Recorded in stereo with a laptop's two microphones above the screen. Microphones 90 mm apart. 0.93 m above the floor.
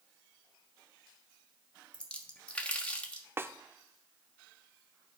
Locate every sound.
1.9 s a splash: 15° left (ahead or behind), 1.2 m
3.4 s a snare drum: 25° right (ahead or behind), 0.5 m